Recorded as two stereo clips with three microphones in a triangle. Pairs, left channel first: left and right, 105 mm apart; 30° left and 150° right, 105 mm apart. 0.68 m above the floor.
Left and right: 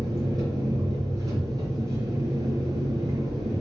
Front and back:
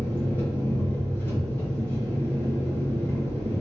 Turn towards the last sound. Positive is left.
turn(degrees=-40)